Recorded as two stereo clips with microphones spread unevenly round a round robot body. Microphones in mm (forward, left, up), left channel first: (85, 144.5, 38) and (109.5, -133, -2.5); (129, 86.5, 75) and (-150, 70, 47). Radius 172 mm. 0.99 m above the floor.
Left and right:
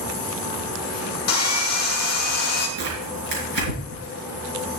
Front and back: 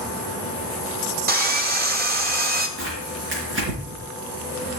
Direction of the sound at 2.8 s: 120° right.